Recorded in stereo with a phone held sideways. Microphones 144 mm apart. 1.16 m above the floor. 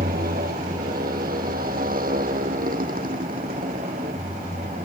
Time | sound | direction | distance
0.0 | a motorcycle | 80° right | ?